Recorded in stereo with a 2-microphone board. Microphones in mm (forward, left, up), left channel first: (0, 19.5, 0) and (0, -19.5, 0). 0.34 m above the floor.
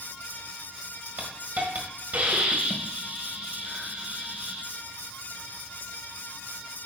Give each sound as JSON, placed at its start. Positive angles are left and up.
{"t": 1.2, "sound": "a hiss", "side_deg": -50, "distance_m": 1.6}